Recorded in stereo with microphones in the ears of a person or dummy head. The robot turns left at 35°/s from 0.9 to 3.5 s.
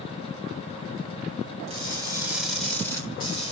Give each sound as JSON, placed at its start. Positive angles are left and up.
{"t": 1.7, "sound": "crushing", "azimuth_deg": -150, "distance_m": 2.0}